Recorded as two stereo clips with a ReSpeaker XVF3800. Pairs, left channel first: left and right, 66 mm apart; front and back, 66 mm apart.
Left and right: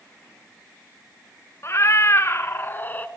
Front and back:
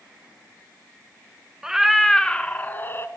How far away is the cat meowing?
About 0.9 m.